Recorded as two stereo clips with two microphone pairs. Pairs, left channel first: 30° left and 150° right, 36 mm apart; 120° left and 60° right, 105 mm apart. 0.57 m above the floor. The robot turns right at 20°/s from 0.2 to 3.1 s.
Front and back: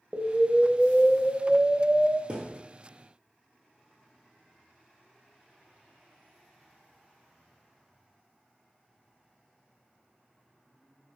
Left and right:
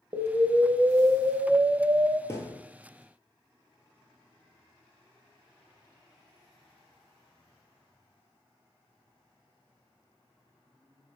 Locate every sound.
0.1 s an explosion: 90° right, 0.5 m; by 2.2 s 50° right, 0.5 m
2.3 s a thud: 170° left, 0.7 m; by 2.6 s 175° left, 0.7 m